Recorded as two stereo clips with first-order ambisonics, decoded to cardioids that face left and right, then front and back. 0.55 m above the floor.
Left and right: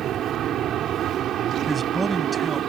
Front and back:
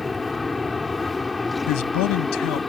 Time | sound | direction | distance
0.0 | an aircraft | 75° right | ?
1.7 | a man speaking | 10° right | ?